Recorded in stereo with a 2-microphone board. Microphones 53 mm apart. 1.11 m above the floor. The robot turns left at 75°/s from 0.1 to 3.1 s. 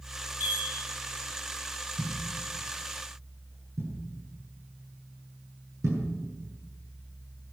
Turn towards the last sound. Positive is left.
turn(degrees=-85)